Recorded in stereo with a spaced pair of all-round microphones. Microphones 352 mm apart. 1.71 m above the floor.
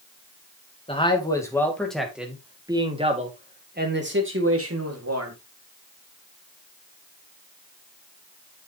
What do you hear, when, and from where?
0.9 s a man speaking: 15° left (ahead or behind), 3 m; by 5.3 s 45° right (ahead or behind), 3 m